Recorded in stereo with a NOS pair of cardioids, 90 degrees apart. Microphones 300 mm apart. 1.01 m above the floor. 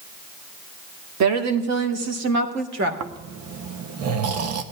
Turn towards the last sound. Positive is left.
turn(degrees=-60)